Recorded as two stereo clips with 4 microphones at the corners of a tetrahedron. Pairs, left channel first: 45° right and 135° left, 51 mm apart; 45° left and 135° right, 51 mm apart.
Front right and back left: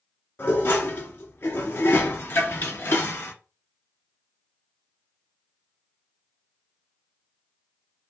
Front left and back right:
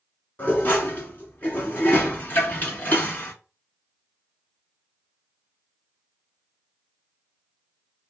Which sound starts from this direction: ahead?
Dishes clattering, at 0.4 s.